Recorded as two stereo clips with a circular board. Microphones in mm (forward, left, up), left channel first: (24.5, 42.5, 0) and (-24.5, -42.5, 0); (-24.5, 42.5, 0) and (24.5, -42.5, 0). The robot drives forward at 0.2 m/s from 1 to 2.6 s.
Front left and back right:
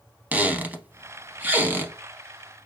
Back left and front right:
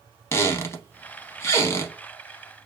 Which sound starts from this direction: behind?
A squeak, at 0.3 s.